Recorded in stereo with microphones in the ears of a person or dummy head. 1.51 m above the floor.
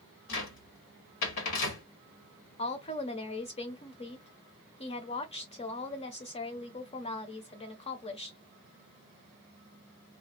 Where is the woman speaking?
25° left (ahead or behind), 0.7 m.